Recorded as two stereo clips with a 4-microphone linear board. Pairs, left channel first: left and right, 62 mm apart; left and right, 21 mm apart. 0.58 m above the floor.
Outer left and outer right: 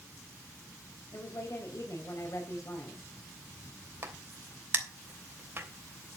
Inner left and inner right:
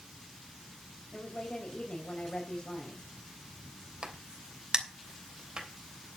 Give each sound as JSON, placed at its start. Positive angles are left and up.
{"t": 1.1, "sound": "a woman speaking", "side_deg": 55, "distance_m": 3.0}
{"t": 4.0, "sound": "a crack", "side_deg": -35, "distance_m": 3.0}